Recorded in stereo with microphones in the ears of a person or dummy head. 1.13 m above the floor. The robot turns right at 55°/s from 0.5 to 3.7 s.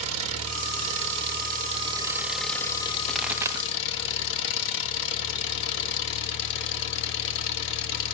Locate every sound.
0.0 s an engine running: 105° right, 1.5 m; by 8.1 s 70° left, 1.5 m
3.1 s a pop: 5° left (ahead or behind), 1.1 m; by 3.7 s 25° right (ahead or behind), 1.1 m